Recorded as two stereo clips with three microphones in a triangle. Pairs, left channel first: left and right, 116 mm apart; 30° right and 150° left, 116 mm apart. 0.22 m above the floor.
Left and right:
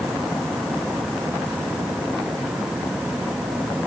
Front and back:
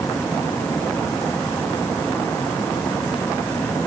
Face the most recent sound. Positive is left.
No sound to turn to.